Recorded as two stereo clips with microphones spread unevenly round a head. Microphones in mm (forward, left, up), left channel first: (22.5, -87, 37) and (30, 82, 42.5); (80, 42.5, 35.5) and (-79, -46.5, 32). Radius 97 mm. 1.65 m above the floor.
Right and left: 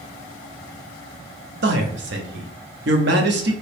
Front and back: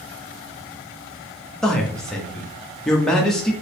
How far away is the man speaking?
About 0.6 m.